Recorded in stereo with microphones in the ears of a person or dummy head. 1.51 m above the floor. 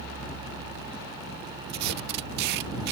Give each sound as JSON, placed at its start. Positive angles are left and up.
{"t": 1.7, "sound": "tape being pulled", "side_deg": -65}